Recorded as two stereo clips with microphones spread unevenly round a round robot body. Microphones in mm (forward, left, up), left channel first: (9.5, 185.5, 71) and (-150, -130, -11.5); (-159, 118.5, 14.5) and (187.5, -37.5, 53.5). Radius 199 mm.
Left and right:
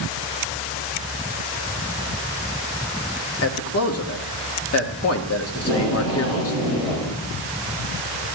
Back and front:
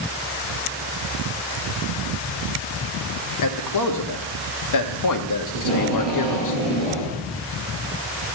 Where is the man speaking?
120° left, 1.2 m.